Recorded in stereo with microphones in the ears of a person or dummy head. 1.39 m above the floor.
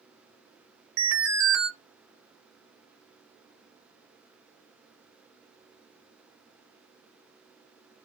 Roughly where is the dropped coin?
I don't hear a dropped coin.